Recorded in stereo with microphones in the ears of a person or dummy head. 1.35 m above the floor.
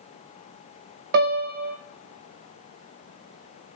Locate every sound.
1.1 s a piano: 55° right (ahead or behind), 1.4 m